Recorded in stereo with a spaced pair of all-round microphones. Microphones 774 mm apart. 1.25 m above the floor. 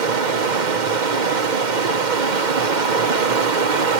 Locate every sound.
0.0 s running water: 70° right (ahead or behind), 1.1 m